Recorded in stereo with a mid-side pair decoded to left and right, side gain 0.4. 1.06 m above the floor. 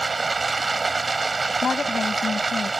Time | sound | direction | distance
0.0 | running water | 25° right | ?
1.6 | a woman speaking | 45° left | ?